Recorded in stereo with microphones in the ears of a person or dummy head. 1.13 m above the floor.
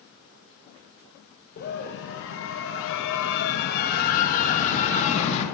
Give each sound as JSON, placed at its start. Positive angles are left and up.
{"t": 1.6, "sound": "a scream", "side_deg": 40, "distance_m": 1.2}